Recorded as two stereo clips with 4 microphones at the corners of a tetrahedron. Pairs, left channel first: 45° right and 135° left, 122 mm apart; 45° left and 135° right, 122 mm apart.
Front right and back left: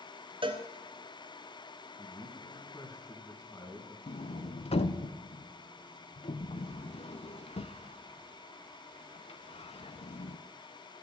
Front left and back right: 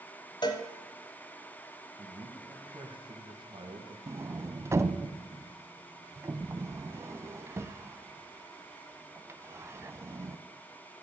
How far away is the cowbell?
About 0.9 m.